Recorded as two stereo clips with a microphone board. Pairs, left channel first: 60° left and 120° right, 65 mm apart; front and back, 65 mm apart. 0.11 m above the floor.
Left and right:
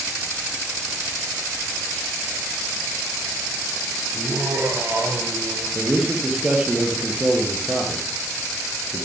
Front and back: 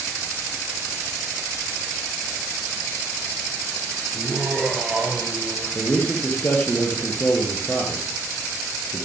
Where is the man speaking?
55° right, 2.5 m.